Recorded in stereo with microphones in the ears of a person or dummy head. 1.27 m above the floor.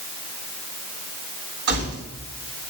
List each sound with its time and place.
1.7 s keys jangling: 60° right (ahead or behind), 8 m